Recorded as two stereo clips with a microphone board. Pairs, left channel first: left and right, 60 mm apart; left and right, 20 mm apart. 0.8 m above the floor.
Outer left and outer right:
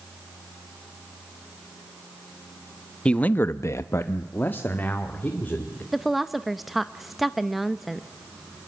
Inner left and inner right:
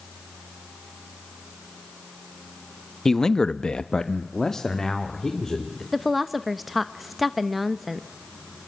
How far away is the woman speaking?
About 0.6 m.